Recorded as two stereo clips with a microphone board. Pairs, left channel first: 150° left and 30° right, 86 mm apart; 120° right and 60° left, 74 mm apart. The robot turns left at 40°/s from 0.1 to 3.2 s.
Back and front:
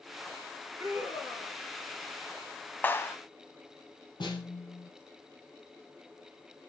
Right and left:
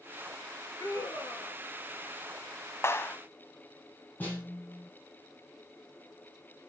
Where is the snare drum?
175° left, 3.5 m.